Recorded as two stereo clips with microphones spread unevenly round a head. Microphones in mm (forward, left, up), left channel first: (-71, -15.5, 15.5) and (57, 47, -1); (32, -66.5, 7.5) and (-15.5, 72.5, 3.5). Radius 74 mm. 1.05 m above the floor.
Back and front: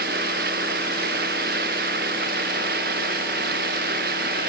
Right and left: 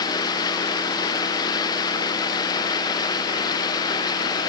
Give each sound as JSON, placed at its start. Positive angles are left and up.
{"t": 0.0, "sound": "running water", "azimuth_deg": -5}